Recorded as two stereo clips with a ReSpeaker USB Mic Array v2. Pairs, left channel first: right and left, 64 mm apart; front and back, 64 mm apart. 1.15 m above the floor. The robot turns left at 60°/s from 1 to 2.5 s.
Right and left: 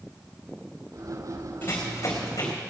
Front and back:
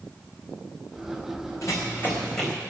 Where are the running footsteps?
30° right, 4 m; by 2.5 s 85° right, 4 m.